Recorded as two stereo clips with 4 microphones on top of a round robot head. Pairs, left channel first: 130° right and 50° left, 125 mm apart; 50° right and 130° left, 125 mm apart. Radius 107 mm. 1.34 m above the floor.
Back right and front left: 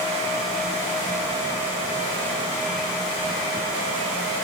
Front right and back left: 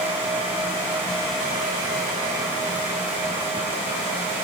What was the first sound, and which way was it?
Only background noise.